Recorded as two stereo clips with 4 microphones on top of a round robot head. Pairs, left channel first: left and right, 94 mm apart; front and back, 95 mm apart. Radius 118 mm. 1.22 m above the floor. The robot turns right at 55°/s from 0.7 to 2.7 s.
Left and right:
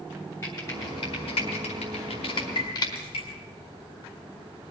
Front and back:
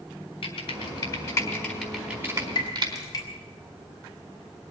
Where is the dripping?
25° left, 3 m; by 3.2 s 50° left, 3 m.